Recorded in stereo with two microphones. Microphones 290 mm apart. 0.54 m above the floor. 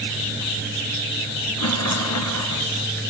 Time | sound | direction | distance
1.6 | a rattle | 70° left (ahead or behind) | 1.9 m